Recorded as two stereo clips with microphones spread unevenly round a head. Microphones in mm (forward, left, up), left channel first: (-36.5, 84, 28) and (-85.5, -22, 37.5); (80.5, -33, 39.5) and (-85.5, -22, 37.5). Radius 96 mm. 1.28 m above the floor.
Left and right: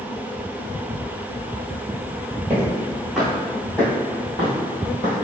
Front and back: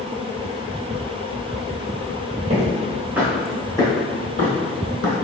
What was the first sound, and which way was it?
Footsteps, 165° right.